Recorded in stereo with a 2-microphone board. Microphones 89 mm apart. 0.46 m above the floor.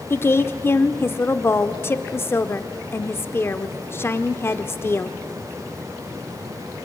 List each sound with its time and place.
0.1 s a woman speaking: 30° left (ahead or behind), 0.9 m